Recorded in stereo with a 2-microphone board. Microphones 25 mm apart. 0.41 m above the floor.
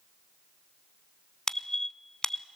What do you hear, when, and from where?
1.5 s a squeak: 25° left (ahead or behind), 0.5 m